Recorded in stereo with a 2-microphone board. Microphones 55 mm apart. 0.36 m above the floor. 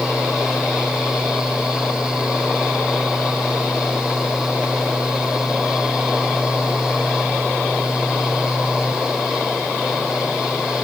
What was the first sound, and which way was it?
Only background noise.